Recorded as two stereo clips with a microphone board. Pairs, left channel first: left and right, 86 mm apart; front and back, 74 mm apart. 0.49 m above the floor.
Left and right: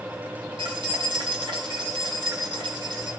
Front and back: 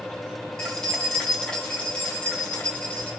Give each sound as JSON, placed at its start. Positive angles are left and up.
{"t": 0.6, "sound": "keys jangling", "azimuth_deg": -85, "distance_m": 3.0}